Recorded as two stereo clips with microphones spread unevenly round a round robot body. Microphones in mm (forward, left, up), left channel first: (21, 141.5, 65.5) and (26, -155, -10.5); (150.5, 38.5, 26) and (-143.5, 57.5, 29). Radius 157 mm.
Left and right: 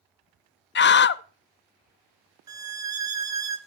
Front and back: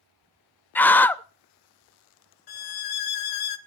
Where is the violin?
5° right, 1.0 m.